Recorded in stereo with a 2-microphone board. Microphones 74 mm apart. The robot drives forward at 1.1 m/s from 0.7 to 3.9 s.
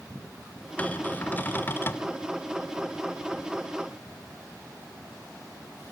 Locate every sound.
0.8 s a cupboard door: 20° left (ahead or behind), 2.5 m; by 2.1 s 30° left (ahead or behind), 1.6 m